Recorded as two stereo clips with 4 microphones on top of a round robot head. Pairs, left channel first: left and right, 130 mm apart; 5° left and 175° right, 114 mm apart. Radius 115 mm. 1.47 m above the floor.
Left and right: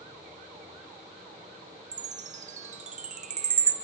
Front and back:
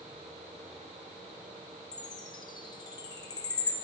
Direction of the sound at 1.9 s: 55° right.